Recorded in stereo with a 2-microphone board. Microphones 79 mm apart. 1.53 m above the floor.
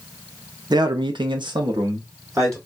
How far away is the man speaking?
About 0.6 m.